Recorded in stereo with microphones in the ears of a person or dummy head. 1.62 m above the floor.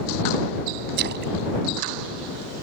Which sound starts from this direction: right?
A splash, at 1.0 s.